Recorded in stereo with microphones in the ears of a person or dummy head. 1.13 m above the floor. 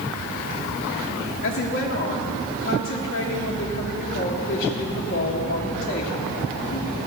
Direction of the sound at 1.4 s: 55° left (ahead or behind).